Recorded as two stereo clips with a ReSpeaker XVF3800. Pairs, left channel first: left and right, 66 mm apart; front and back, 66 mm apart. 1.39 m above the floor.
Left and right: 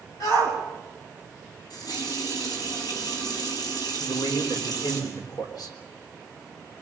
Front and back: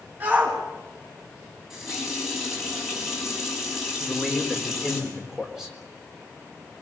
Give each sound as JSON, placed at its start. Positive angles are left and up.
{"t": 0.2, "sound": "a shout", "azimuth_deg": 115, "distance_m": 9.0}
{"t": 1.7, "sound": "a running tap", "azimuth_deg": 95, "distance_m": 6.5}
{"t": 4.0, "sound": "a man speaking", "azimuth_deg": 95, "distance_m": 4.0}